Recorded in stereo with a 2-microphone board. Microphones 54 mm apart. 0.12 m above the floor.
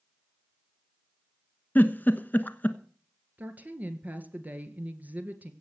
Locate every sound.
1.8 s a giggle: 35° left (ahead or behind), 1.1 m
3.4 s a woman speaking: 30° right (ahead or behind), 1.9 m